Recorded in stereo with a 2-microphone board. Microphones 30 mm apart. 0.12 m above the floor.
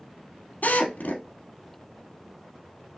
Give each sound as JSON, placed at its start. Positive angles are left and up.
{"t": 0.6, "sound": "a drill", "side_deg": 65, "distance_m": 2.5}